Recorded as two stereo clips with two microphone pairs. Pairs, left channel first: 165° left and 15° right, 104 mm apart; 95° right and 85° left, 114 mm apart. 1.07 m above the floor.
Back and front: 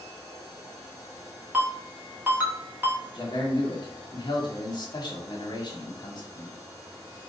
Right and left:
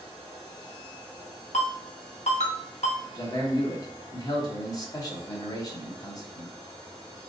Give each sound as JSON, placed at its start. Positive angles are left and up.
{"t": 1.5, "sound": "a ringtone", "azimuth_deg": -85, "distance_m": 1.2}
{"t": 3.1, "sound": "a man speaking", "azimuth_deg": -150, "distance_m": 1.2}